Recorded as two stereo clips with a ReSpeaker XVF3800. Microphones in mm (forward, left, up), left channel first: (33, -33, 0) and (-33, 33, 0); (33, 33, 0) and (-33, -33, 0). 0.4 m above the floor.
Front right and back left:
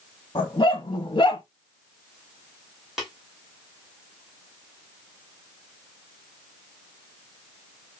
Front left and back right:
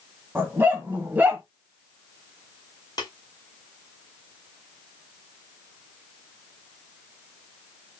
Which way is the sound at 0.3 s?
70° right.